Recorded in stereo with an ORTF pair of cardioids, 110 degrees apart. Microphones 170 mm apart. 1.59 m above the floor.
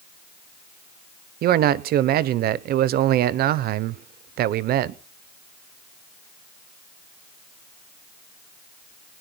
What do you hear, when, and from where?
1.4 s a man speaking: 65° right, 0.9 m